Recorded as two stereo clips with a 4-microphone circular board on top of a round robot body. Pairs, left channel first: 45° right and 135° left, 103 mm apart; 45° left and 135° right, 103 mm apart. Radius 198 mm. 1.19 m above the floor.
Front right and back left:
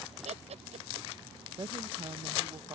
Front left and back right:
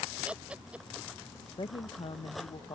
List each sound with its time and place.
0.2 s laughter: 145° left
1.6 s a woman speaking: 85° left